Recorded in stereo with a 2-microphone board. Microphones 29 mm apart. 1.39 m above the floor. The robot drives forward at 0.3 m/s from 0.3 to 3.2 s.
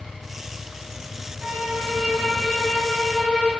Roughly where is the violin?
Right.